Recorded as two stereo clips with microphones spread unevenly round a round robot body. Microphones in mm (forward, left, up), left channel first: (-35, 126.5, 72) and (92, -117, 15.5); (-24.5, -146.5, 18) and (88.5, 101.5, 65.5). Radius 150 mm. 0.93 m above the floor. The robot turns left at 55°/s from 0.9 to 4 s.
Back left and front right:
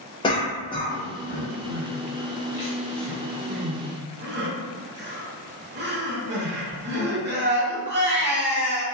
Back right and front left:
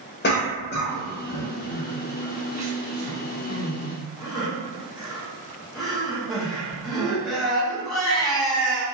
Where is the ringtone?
No ringtone in this recording.